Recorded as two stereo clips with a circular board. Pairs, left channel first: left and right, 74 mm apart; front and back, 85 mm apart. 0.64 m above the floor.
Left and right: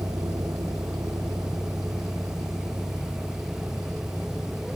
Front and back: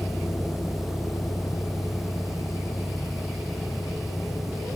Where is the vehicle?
65° right; by 4.8 s 30° right.